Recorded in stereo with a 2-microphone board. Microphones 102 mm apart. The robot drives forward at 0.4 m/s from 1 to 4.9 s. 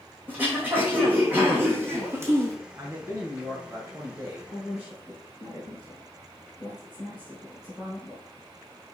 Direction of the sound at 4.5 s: 15° right (ahead or behind).